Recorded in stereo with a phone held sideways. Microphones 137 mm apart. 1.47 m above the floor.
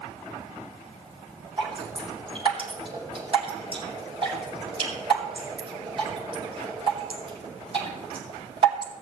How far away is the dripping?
About 6 m.